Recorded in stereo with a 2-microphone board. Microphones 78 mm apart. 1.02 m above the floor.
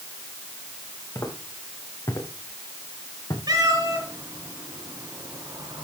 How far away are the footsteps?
About 4 m.